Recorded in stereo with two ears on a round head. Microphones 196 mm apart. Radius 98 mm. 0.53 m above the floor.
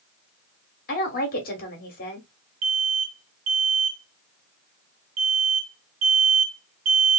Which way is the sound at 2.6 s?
65° right (ahead or behind).